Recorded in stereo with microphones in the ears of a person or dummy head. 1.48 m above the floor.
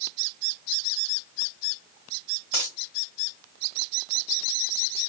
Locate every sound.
2.5 s a dropped coin: 30° left (ahead or behind), 1.6 m